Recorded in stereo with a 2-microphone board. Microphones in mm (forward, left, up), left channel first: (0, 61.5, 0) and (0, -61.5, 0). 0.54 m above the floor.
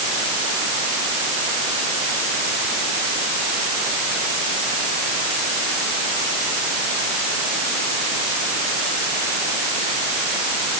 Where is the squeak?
No squeak in this recording.